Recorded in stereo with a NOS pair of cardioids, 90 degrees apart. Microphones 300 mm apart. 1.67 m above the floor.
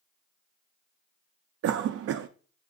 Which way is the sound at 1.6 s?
50° right.